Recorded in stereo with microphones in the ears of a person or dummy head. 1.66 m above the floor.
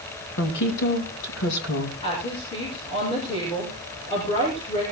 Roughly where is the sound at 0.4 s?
Left.